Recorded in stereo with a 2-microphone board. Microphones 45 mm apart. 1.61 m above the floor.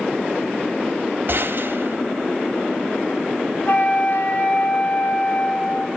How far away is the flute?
About 4 m.